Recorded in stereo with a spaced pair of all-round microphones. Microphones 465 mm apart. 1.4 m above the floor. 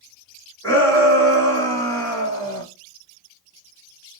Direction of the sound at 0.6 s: 25° right (ahead or behind).